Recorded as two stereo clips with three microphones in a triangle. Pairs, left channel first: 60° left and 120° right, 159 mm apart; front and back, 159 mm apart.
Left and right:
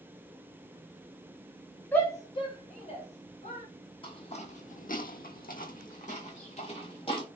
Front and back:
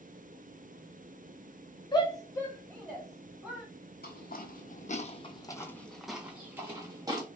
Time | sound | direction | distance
1.9 | a shout | 5° right | 0.9 m
4.0 | footsteps | 5° left | 0.8 m